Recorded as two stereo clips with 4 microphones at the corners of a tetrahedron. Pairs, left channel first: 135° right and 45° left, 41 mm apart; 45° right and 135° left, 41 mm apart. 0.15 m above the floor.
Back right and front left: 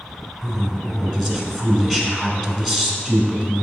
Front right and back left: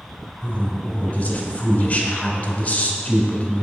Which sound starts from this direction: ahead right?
A woman speaking, at 0.4 s.